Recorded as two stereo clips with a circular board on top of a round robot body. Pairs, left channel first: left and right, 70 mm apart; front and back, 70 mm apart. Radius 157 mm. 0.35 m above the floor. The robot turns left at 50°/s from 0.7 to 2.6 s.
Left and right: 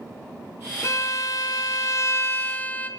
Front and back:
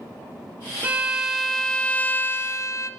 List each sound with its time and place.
0.8 s a violin: 115° left, 0.6 m; by 2.9 s 30° left, 0.6 m